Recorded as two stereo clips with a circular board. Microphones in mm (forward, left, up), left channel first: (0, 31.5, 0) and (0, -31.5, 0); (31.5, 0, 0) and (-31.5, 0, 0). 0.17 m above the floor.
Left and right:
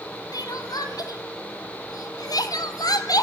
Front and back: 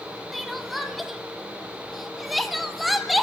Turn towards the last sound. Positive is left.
turn(degrees=90)